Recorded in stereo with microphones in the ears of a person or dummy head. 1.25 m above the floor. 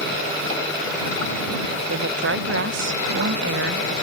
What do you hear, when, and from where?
1.9 s a woman speaking: 60° right (ahead or behind)